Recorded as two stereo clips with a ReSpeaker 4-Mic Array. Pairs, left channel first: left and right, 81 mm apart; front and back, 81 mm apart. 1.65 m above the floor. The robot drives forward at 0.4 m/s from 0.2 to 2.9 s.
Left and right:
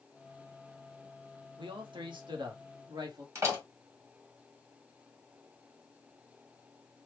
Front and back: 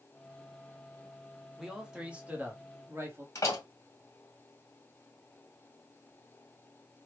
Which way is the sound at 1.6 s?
90° right.